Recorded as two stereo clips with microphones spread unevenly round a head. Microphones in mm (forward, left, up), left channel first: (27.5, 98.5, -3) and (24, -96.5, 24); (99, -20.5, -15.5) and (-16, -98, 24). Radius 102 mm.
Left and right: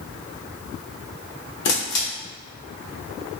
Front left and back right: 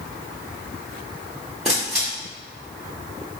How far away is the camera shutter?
About 0.9 m.